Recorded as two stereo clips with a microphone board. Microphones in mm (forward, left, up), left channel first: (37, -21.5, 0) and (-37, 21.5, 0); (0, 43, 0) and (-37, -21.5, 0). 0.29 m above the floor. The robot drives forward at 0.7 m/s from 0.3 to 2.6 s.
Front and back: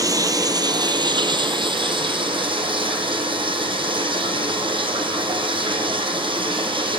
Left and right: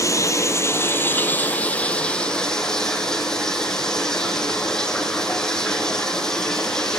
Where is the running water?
105° left, 1.6 m; by 7.0 s 145° left, 2.5 m.